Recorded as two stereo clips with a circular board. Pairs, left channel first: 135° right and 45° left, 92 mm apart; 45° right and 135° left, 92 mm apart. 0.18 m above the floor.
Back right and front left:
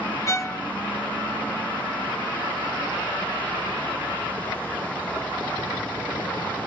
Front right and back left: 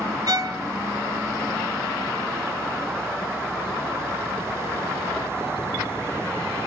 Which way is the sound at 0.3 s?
175° left.